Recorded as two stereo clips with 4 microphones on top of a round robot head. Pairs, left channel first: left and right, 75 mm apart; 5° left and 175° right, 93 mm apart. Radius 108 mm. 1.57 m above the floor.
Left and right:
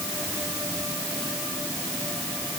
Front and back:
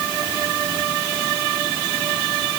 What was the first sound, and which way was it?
Only background noise.